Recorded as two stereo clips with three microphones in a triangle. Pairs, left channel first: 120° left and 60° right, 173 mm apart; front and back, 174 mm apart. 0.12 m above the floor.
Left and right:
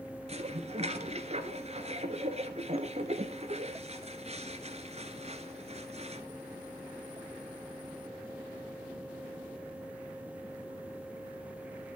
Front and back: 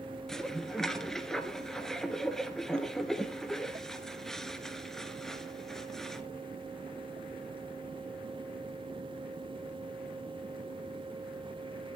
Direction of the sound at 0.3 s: 85° right.